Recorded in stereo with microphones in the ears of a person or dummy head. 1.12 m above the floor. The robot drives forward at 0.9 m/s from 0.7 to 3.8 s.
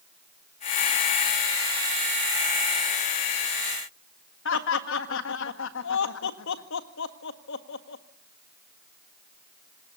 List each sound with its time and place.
4.5 s laughter: 70° left (ahead or behind), 1.6 m